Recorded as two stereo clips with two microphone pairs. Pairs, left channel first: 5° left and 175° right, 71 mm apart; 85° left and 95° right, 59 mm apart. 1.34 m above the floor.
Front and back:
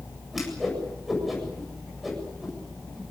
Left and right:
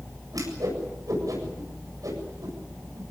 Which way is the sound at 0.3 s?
85° right.